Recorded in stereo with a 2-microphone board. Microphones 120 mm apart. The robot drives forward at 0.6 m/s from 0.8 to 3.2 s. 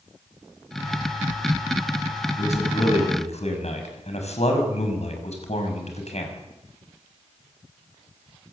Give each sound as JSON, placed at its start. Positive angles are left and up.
{"t": 2.4, "sound": "a man speaking", "side_deg": 70, "distance_m": 6.5}